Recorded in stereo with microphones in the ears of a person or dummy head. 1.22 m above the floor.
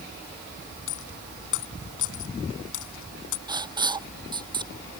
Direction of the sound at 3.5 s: 30° right (ahead or behind).